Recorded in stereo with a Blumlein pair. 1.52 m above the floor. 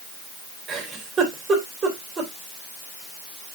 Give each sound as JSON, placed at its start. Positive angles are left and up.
{"t": 0.7, "sound": "a giggle", "azimuth_deg": -20, "distance_m": 3.0}